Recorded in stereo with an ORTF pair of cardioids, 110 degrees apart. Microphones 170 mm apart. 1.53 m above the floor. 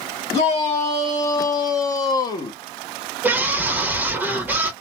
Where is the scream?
10° right, 1.3 m.